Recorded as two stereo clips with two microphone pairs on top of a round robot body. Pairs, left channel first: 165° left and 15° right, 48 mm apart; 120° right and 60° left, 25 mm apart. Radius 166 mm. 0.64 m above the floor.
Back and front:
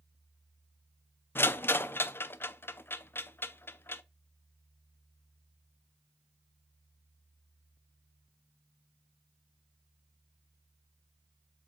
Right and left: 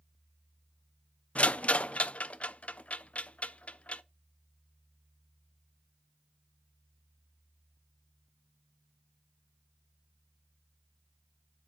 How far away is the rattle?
About 0.5 m.